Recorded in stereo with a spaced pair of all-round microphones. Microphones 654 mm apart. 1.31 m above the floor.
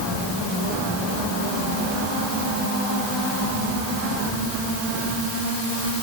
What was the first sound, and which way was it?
Only background noise.